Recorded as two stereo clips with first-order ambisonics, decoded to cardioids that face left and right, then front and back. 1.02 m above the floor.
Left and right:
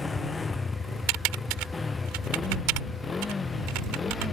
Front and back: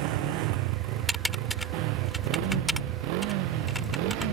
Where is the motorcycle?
170° left; by 4.3 s 165° left.